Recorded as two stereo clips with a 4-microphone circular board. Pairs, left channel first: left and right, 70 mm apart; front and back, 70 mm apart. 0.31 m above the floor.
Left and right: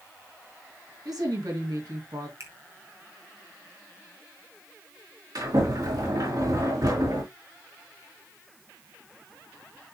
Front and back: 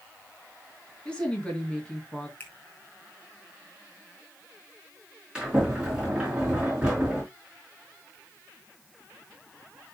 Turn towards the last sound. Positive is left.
turn(degrees=-105)